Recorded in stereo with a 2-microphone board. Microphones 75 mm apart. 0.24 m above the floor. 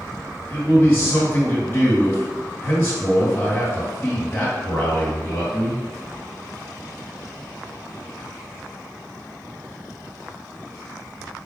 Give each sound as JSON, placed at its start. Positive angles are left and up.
{"t": 0.5, "sound": "a man speaking", "side_deg": 25, "distance_m": 2.0}